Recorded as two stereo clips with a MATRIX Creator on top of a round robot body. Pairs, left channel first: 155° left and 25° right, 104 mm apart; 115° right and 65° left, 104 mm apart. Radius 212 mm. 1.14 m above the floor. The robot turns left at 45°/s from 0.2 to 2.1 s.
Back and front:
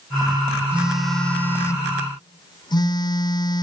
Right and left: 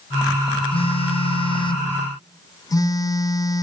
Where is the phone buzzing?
100° right, 1.0 m; by 3.6 s 165° right, 1.0 m.